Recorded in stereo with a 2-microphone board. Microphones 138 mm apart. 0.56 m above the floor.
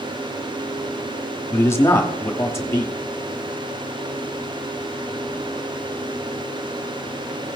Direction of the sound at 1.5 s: 20° left (ahead or behind).